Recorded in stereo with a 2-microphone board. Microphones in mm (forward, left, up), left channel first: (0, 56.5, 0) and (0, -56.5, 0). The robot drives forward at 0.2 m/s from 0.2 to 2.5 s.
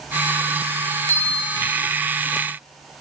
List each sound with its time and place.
1.1 s a bell: 55° left (ahead or behind), 0.9 m